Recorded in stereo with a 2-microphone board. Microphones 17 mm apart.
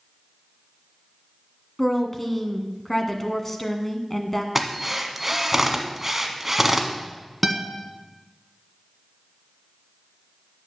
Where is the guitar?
10° right (ahead or behind), 1.2 m.